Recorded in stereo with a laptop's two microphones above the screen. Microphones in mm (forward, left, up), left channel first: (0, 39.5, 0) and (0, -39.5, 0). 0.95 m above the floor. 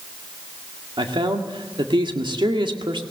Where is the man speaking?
80° right, 1.9 m.